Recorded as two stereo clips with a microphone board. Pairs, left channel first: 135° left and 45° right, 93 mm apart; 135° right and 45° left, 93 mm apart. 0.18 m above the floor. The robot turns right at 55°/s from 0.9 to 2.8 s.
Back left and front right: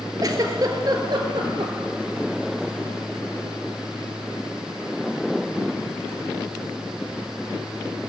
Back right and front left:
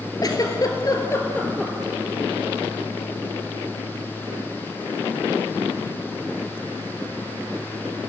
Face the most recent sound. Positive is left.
turn(degrees=15)